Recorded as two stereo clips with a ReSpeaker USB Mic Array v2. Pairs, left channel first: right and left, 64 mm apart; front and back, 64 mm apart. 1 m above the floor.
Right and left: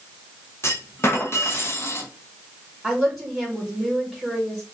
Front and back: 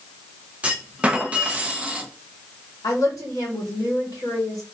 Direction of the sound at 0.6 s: 115° right.